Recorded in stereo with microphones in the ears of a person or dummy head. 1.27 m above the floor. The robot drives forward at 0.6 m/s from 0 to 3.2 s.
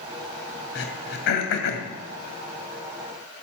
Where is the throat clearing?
60° left (ahead or behind), 2.5 m; by 1.9 s 70° left (ahead or behind), 2.5 m.